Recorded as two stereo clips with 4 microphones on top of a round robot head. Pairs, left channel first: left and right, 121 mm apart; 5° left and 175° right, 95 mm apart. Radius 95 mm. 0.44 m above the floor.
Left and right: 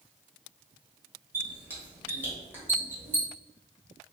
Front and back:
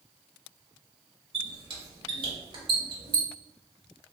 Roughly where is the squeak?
Behind.